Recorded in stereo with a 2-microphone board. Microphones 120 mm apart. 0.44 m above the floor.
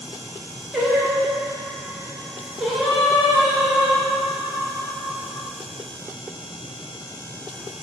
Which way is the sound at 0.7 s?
5° right (ahead or behind).